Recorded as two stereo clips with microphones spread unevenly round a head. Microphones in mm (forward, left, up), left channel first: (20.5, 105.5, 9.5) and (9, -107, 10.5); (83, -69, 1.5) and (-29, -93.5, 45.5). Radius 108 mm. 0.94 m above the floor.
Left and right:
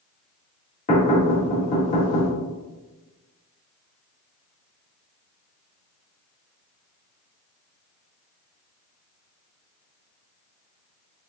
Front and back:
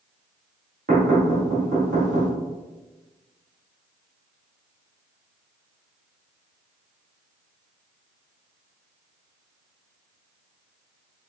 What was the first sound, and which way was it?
Knocking, 145° left.